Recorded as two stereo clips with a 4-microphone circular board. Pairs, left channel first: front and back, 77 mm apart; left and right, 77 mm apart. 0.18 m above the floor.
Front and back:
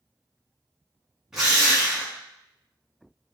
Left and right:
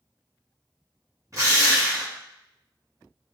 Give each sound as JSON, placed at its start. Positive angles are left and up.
{"t": 1.3, "sound": "a drill", "azimuth_deg": -100, "distance_m": 1.8}